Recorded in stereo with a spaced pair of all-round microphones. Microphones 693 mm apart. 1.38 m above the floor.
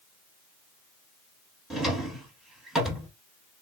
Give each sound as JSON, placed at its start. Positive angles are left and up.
{"t": 1.7, "sound": "a drawer", "side_deg": 0, "distance_m": 1.0}